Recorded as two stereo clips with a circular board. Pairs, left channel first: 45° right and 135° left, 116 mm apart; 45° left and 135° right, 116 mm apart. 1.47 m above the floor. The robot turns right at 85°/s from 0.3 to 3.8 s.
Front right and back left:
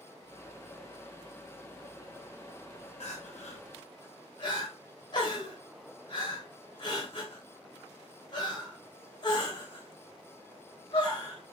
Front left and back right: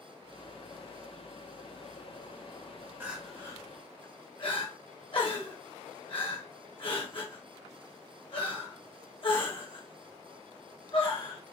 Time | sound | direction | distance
3.0 | crying | 65° right | 1.0 m